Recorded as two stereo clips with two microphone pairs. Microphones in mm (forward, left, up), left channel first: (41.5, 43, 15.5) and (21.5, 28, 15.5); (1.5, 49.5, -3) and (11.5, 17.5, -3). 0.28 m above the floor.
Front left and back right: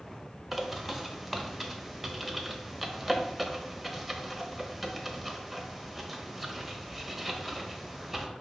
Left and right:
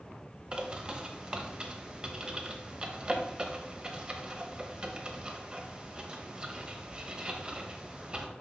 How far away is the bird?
About 0.9 m.